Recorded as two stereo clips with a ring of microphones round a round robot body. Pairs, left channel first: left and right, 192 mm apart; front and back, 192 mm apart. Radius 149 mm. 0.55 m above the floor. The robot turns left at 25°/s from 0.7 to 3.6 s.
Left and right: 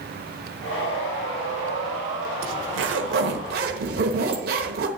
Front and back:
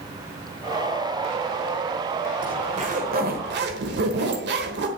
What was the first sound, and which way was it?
A zipper, 110° right.